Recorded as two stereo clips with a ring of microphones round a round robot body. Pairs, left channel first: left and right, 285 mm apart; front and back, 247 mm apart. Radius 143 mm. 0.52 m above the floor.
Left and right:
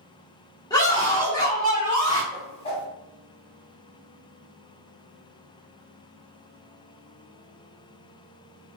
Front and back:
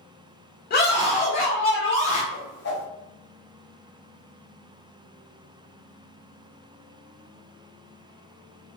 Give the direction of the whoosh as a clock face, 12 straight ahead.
11 o'clock.